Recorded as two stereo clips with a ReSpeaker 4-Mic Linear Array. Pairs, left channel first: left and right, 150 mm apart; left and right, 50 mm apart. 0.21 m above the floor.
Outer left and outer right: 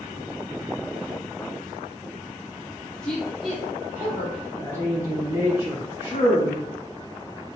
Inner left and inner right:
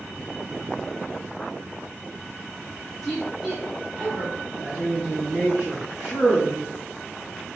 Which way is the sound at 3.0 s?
5° left (ahead or behind).